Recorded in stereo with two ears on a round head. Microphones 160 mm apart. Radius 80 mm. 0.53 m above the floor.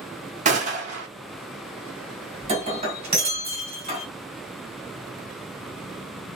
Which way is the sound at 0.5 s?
40° right (ahead or behind).